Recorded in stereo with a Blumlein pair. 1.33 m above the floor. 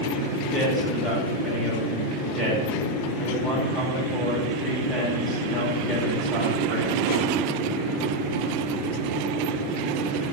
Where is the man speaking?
20° left, 6 m.